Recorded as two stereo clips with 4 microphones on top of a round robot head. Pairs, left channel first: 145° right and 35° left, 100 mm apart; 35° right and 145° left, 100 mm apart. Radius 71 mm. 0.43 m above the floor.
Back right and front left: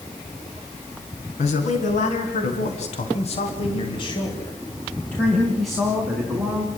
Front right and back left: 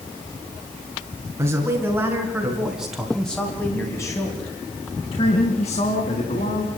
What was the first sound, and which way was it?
A man speaking, 150° right.